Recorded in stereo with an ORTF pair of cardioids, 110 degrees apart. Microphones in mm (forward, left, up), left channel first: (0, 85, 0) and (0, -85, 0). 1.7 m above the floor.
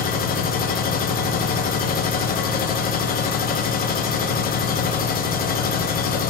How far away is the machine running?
About 0.7 m.